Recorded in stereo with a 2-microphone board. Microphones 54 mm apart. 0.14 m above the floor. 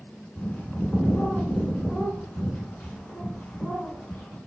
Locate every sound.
0.4 s a bird: 15° left (ahead or behind), 0.8 m